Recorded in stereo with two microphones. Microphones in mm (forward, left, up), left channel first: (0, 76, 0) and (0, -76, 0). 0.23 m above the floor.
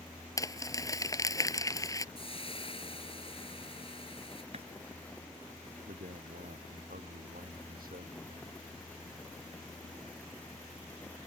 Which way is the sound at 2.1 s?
40° left (ahead or behind).